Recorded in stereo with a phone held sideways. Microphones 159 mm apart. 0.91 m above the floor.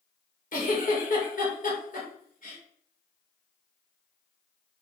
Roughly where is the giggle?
Left.